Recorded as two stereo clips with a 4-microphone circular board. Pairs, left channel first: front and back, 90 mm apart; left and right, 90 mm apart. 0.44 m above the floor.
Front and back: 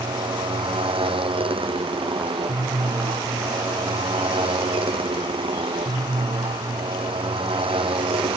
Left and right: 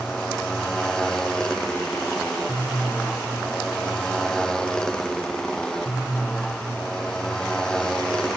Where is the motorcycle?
175° left.